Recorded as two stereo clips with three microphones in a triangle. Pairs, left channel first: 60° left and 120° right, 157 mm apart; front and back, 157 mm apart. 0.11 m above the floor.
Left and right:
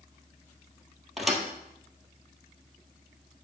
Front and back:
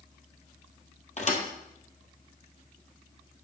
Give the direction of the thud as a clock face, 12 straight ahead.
1 o'clock.